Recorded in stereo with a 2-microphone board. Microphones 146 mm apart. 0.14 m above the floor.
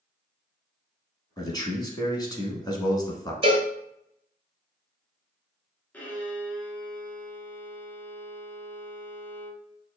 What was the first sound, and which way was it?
A man speaking, 25° left (ahead or behind).